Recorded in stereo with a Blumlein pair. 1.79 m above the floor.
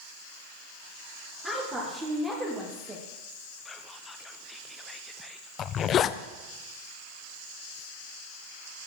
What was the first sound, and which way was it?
A woman speaking, 15° right.